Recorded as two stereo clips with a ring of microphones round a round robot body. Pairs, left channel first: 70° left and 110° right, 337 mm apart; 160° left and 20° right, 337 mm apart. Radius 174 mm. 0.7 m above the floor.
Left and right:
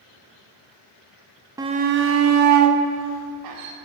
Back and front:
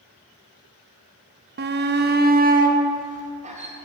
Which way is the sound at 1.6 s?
40° right.